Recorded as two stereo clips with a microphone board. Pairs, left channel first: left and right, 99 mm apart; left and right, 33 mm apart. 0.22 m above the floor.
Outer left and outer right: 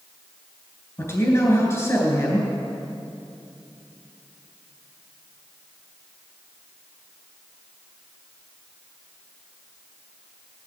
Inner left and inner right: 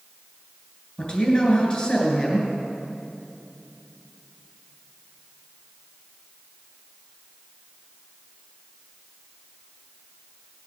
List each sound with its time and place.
1.0 s a man speaking: 25° left (ahead or behind), 3 m